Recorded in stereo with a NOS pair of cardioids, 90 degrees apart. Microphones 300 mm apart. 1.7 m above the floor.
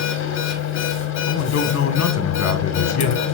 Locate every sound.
0.0 s a machine running: 65° left, 1.8 m
1.3 s a man speaking: 60° left, 1.9 m